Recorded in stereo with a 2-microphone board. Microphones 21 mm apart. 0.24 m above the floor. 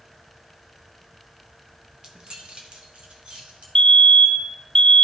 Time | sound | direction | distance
2.0 | keys jangling | 40° right (ahead or behind) | 1.3 m
3.8 | a fire alarm | 30° left (ahead or behind) | 2.5 m